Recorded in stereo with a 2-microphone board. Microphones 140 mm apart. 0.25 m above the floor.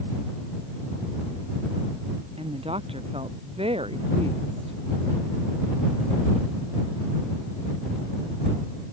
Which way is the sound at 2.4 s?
40° right (ahead or behind).